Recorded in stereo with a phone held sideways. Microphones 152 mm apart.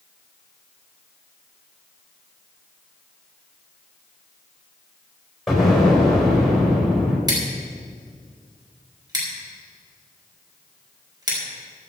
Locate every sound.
5.5 s an explosion: centre (ahead or behind), 4.5 m
7.3 s scissors: 25° right (ahead or behind), 4 m